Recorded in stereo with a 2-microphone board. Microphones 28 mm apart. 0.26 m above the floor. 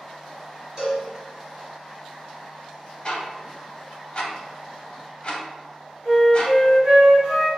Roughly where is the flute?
Right.